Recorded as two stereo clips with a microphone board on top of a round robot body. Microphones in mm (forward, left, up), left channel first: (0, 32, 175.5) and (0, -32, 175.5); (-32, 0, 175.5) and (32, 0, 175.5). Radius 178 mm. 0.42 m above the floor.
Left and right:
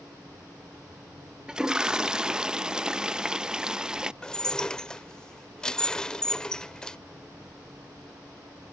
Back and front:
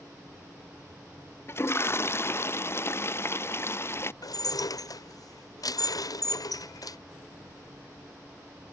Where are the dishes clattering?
170° left.